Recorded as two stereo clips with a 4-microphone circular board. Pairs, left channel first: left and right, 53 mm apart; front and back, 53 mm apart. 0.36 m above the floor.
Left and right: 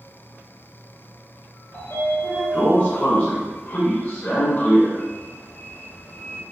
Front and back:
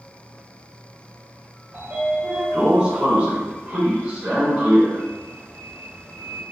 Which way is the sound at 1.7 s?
125° left.